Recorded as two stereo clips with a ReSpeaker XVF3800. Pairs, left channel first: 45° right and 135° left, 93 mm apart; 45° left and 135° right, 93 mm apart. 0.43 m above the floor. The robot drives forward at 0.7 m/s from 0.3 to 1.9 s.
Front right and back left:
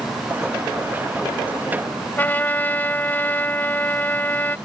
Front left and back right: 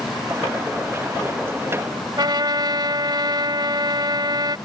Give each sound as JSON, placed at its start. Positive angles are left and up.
{"t": 2.2, "sound": "a trumpet", "azimuth_deg": -110}